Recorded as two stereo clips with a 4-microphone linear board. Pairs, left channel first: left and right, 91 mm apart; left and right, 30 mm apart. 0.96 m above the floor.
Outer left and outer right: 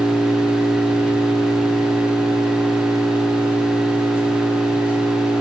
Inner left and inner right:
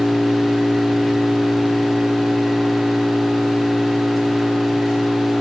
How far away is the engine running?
About 5.5 m.